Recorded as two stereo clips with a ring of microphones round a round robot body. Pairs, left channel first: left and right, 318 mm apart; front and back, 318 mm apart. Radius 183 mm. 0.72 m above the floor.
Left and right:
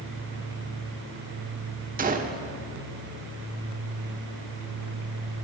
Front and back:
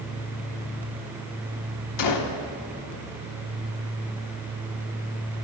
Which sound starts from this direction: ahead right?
A gunshot, at 2.0 s.